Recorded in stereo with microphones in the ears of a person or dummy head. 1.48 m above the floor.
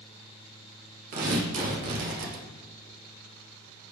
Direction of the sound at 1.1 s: 45° right (ahead or behind).